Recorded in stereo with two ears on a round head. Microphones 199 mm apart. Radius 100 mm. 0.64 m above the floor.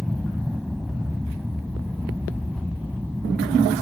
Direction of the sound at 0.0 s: Centre (ahead or behind).